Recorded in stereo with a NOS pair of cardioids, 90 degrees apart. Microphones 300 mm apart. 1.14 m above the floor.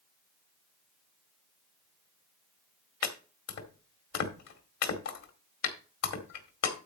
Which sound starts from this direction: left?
Chopping, at 3.0 s.